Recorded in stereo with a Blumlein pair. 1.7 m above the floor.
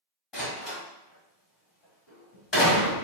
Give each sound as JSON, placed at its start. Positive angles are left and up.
{"t": 0.3, "sound": "a door slam", "azimuth_deg": 30, "distance_m": 1.5}